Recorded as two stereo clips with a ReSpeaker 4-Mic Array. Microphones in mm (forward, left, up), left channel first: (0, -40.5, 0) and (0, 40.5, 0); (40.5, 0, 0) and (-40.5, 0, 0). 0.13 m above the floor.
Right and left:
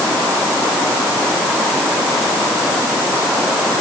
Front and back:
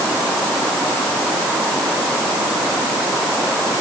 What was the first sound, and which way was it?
Only background noise.